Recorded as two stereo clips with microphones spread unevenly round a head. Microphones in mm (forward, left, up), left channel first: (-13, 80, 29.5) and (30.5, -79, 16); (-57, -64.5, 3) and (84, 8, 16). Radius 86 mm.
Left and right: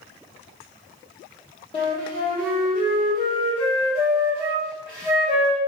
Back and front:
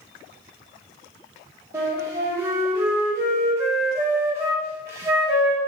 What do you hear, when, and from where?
1.7 s a flute: 80° left, 1.0 m